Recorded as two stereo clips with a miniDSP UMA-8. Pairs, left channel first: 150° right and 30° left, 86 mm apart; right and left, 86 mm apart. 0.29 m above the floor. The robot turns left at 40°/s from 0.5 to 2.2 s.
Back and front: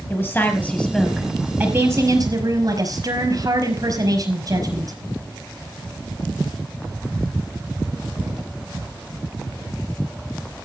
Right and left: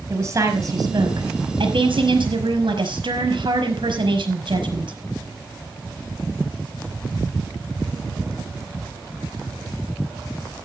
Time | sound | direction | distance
0.1 | a woman speaking | 140° left | 5 m